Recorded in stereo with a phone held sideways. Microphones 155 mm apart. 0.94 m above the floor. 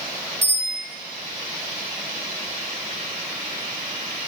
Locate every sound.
0.4 s a bicycle bell: 85° left, 7.5 m